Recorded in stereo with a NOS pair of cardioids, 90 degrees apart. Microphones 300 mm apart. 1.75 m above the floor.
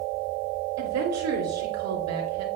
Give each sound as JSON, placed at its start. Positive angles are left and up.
{"t": 0.8, "sound": "a woman speaking", "azimuth_deg": -60, "distance_m": 3.5}